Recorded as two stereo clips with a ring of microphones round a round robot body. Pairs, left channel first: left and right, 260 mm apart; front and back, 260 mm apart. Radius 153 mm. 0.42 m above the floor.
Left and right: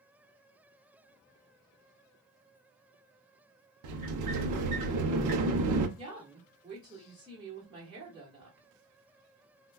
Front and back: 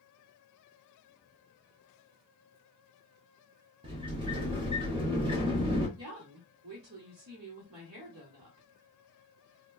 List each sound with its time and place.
3.8 s a sliding door: 105° right, 0.6 m
6.0 s a woman speaking: 160° right, 1.2 m